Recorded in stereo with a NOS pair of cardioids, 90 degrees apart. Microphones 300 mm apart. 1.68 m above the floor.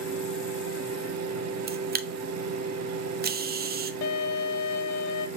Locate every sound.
0.0 s a fan: 60° right, 1.2 m
1.7 s a camera shutter: 30° right, 0.5 m
4.0 s a violin: 65° left, 0.5 m